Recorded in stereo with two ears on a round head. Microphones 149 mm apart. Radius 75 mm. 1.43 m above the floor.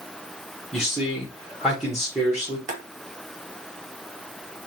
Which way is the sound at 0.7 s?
5° right (ahead or behind).